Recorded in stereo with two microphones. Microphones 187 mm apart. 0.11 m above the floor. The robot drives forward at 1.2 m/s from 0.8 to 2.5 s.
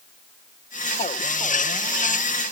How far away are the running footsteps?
I don't hear running footsteps.